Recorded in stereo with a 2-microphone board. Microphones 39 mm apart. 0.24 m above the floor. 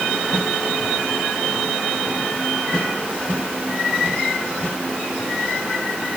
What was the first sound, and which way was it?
Only background noise.